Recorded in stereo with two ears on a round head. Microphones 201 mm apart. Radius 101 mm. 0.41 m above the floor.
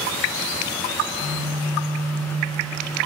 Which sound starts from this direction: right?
A phone buzzing, at 1.0 s.